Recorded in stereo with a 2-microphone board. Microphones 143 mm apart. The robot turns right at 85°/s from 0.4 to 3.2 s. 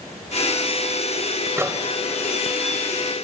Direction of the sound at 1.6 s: 20° right (ahead or behind).